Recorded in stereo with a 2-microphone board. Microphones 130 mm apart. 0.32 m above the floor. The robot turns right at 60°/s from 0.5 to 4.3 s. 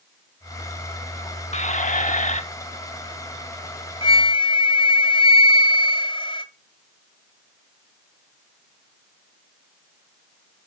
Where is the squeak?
60° left, 0.8 m; by 2.4 s 115° left, 0.8 m.